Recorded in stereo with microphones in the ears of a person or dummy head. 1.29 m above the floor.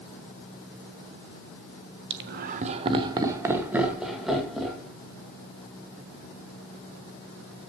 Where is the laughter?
65° right (ahead or behind), 1.2 m; by 4.9 s centre (ahead or behind), 3 m.